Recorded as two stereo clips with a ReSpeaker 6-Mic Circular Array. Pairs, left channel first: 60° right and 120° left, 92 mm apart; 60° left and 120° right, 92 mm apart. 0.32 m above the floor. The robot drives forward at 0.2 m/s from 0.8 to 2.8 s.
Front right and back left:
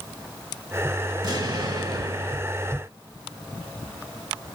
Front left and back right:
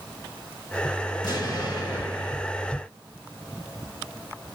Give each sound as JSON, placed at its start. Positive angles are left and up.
{"t": 1.2, "sound": "an explosion", "azimuth_deg": 95, "distance_m": 2.5}